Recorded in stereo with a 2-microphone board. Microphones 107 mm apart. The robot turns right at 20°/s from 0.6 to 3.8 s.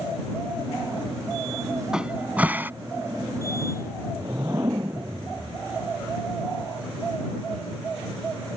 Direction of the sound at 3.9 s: 30° right (ahead or behind).